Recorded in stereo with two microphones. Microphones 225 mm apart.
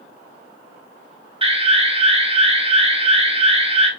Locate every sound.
1.4 s an alarm: 25° right (ahead or behind), 0.8 m